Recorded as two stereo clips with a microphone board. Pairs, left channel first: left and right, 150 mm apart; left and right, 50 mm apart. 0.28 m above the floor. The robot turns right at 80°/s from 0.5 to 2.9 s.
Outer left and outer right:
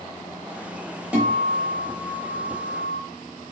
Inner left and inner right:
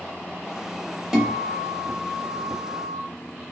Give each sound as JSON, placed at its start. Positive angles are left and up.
{"t": 1.1, "sound": "a guitar", "side_deg": -10, "distance_m": 0.8}